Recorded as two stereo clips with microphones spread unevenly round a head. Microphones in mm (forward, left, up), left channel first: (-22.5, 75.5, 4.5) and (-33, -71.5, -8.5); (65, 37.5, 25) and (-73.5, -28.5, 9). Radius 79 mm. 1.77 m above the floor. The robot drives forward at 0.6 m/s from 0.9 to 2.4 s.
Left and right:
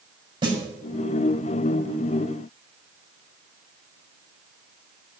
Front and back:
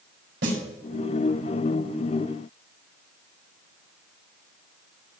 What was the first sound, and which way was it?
A snare drum, 150° right.